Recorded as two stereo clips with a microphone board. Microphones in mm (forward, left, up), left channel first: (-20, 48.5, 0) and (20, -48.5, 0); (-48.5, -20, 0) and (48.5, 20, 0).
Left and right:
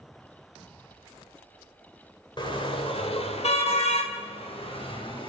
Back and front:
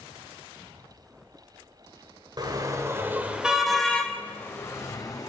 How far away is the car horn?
About 2.5 m.